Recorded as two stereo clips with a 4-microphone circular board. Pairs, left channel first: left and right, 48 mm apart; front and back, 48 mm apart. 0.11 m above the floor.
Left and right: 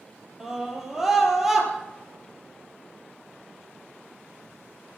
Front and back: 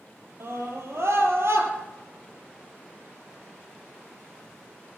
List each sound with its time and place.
0.4 s a scream: 170° right, 4 m; by 1.7 s 175° right, 3.5 m